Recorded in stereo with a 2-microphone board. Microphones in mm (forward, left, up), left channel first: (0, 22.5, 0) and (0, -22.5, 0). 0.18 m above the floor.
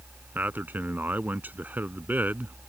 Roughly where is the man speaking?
Right.